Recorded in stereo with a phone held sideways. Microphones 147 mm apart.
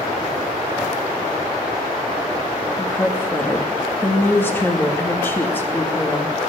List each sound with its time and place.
2.8 s a woman speaking: 15° left (ahead or behind), 2 m